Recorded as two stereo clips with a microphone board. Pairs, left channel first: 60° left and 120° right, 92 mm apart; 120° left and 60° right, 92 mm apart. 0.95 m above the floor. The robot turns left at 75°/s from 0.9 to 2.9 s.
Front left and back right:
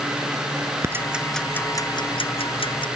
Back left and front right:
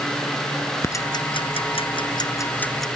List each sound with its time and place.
0.8 s ticking: straight behind; by 2.9 s 30° left